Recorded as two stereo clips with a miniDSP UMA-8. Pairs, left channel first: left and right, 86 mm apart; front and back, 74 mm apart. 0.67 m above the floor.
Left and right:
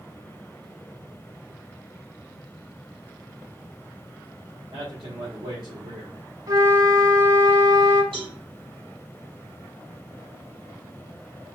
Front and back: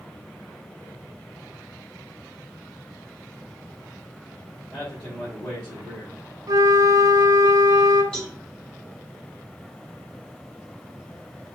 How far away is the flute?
About 1.3 m.